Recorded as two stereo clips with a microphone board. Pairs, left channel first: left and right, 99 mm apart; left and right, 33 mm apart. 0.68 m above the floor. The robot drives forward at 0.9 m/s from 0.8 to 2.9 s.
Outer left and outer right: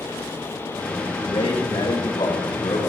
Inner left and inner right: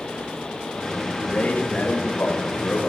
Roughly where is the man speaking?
Left.